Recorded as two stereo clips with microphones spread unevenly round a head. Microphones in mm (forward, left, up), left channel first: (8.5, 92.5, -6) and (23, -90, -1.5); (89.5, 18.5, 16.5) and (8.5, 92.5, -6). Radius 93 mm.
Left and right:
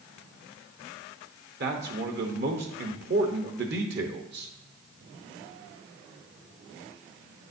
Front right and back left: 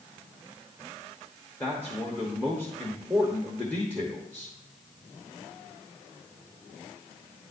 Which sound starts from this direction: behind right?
A man speaking, at 1.6 s.